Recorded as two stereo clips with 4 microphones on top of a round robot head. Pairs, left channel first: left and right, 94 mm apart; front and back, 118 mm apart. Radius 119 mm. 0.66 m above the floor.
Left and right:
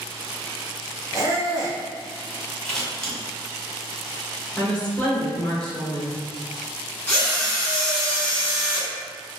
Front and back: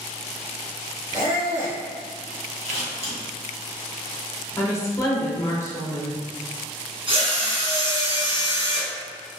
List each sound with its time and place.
1.1 s a squeak: 140° right, 1.5 m
2.6 s scissors: 170° left, 1.7 m
4.6 s a woman speaking: 25° left, 1.0 m
7.1 s a drill: 160° left, 1.6 m